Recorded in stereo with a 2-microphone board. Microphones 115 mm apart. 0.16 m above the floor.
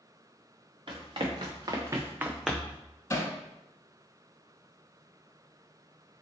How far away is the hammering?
About 0.5 m.